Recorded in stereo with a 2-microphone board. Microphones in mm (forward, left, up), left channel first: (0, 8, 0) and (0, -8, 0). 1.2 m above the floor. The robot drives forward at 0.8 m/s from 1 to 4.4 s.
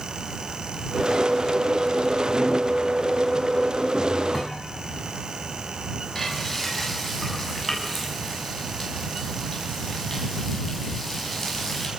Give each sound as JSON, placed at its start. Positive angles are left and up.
{"t": 4.3, "sound": "a thud", "side_deg": 30, "distance_m": 4.5}
{"t": 6.2, "sound": "frying", "side_deg": 10, "distance_m": 9.0}